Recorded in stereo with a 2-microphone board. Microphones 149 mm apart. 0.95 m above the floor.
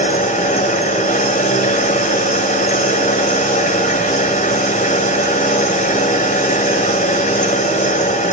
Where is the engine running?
60° left (ahead or behind), 3 m.